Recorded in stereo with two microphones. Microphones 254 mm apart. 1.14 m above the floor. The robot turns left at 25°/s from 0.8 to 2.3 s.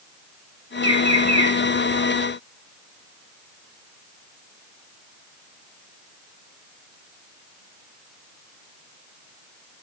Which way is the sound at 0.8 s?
60° right (ahead or behind).